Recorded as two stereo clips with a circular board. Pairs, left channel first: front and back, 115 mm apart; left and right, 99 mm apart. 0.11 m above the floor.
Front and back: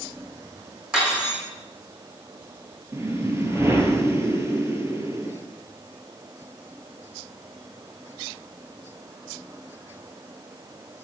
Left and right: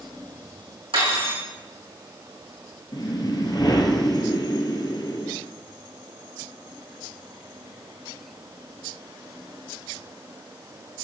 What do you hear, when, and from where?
0.9 s cutlery clinking: 100° right, 3.5 m
2.9 s a whoosh: 120° left, 1.0 m